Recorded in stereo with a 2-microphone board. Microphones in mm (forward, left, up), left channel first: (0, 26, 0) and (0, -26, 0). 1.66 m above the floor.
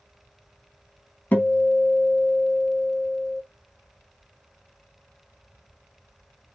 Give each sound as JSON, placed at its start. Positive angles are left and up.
{"t": 1.3, "sound": "a guitar", "side_deg": 30, "distance_m": 0.8}